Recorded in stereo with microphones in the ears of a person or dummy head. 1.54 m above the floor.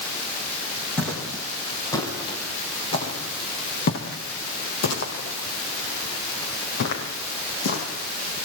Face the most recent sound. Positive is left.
turn(degrees=65)  # may be behind; listen again after turning